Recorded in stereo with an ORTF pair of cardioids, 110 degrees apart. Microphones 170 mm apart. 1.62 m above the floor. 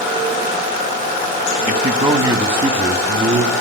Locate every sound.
1.7 s a man speaking: 25° right, 1.9 m; by 3.5 s 30° right, 3.5 m